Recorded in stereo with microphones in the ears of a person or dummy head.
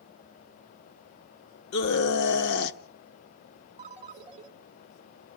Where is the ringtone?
35° right (ahead or behind), 1.5 m.